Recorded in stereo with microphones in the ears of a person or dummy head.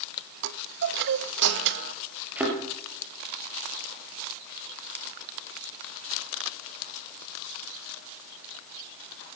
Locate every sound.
0.4 s a chime: 60° right (ahead or behind), 0.8 m
2.4 s a thud: 5° right (ahead or behind), 3 m